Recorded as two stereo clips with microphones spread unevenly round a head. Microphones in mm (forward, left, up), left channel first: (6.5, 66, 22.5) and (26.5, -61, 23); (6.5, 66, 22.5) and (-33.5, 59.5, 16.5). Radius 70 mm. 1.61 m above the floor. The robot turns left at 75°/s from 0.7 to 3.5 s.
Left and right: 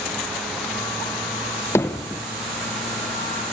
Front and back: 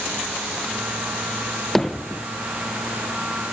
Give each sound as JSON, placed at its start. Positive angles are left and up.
{"t": 1.8, "sound": "hammering", "azimuth_deg": 55, "distance_m": 0.6}